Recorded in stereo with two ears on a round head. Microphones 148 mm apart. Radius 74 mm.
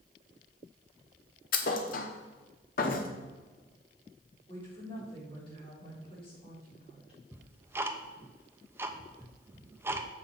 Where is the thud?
55° left (ahead or behind), 1.2 m.